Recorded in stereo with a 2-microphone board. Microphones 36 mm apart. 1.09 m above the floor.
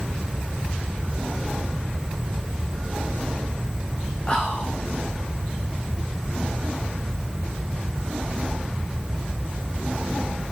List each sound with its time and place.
4.3 s whispering: 30° left (ahead or behind), 3 m